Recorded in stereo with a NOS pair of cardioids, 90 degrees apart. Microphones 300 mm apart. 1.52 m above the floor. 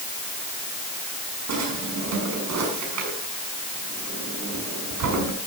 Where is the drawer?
65° right, 6 m.